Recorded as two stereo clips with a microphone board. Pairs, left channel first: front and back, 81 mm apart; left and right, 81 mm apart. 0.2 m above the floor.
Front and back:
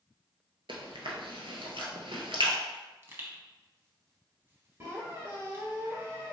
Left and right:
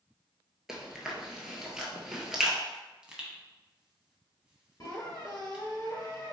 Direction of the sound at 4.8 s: 130° left.